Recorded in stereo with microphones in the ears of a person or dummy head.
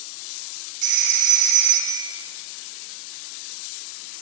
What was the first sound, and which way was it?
A phone ringing, 55° right (ahead or behind).